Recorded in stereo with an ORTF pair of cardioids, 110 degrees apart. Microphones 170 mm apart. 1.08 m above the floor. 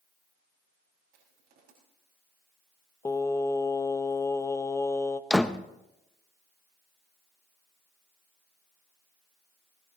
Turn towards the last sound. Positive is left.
turn(degrees=5)